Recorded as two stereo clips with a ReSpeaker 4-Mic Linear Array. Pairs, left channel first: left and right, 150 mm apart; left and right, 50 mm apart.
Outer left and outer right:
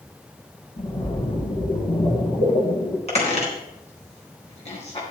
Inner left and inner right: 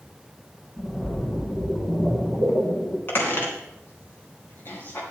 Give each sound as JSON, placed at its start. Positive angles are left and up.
{"t": 0.8, "sound": "a splash", "side_deg": 35, "distance_m": 2.0}
{"t": 3.1, "sound": "a squeak", "side_deg": 45, "distance_m": 3.0}